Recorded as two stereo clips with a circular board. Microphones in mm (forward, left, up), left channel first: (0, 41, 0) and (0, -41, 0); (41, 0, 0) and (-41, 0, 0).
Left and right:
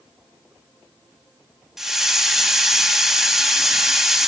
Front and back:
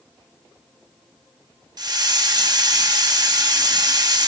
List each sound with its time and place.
1.8 s a hiss: 175° right, 1.0 m